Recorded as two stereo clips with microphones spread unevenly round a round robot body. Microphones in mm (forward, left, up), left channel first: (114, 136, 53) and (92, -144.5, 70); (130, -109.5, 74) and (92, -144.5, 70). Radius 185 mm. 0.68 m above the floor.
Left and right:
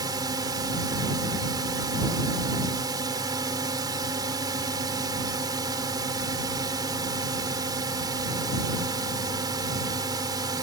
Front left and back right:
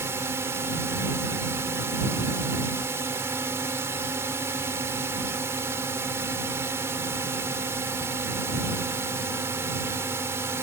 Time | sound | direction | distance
0.0 | a drone | 175° right | ?